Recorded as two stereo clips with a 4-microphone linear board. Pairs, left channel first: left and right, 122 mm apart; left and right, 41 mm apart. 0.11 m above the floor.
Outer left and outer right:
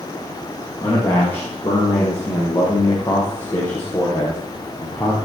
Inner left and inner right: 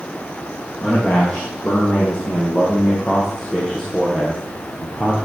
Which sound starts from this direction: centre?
A man speaking, at 0.8 s.